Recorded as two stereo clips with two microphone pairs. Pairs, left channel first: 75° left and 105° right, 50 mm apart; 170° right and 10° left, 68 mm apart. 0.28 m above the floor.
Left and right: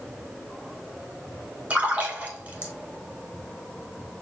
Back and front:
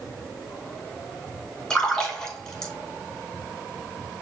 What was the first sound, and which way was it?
A splash, 90° right.